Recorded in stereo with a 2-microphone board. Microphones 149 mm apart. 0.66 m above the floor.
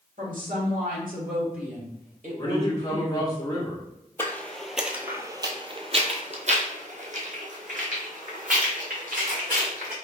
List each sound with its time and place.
0.2 s a woman speaking: 65° right (ahead or behind), 1.9 m; by 3.3 s 45° right (ahead or behind), 3 m
2.4 s a man speaking: 25° left (ahead or behind), 1.2 m
4.2 s footsteps: 15° left (ahead or behind), 0.8 m; by 9.9 s 65° right (ahead or behind), 2.5 m